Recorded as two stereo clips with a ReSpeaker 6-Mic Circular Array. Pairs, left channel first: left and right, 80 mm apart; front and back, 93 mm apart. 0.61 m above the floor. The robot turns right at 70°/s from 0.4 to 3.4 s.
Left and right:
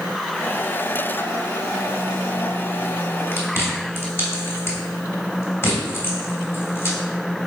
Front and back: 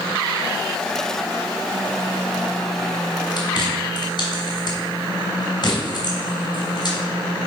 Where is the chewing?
30° left, 2.5 m; by 7.0 s 35° left, 2.5 m.